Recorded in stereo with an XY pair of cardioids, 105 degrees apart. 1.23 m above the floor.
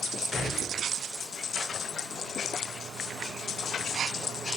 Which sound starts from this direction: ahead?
A gunshot, at 0.3 s.